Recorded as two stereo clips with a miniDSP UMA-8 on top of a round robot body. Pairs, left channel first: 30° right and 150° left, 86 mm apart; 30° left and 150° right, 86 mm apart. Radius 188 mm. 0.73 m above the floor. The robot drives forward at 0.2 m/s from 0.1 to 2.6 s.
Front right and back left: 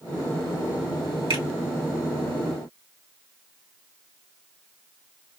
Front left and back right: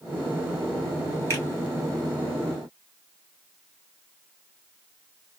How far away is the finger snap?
About 2 m.